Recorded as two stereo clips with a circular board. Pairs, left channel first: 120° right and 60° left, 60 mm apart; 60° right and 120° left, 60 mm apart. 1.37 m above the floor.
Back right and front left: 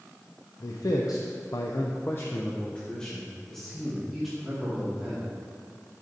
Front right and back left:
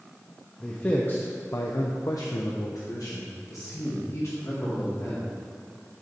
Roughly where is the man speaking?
Behind right.